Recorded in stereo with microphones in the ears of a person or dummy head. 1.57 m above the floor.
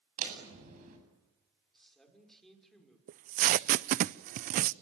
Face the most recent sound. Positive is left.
turn(degrees=-50)  # may be behind; listen again after turning